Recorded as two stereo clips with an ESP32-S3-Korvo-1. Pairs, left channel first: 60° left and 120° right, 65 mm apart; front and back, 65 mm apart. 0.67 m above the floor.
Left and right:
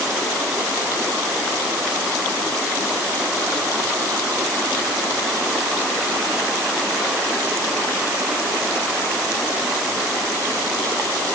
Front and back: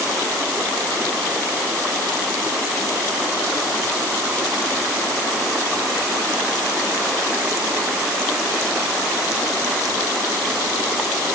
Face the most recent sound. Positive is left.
No sound to turn to.